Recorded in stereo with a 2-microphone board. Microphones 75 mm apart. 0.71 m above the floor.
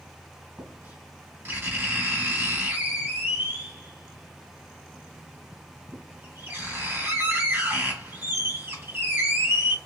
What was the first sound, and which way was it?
Writing, 25° right (ahead or behind).